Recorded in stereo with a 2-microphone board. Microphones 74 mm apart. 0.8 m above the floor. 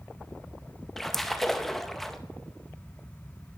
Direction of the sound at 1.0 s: 5° left (ahead or behind).